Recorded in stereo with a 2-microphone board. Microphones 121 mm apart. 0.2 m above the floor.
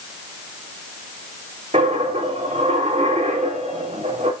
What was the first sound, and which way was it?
A dropped coin, 70° right (ahead or behind).